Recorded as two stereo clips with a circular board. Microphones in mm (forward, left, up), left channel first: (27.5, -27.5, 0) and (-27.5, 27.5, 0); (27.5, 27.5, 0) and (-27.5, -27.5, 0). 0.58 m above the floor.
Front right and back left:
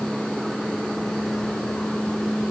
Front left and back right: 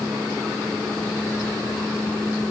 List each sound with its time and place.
Only background noise.